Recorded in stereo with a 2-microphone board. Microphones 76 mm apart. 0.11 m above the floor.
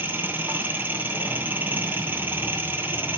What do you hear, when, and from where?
0.0 s an engine running: 25° right (ahead or behind), 1.8 m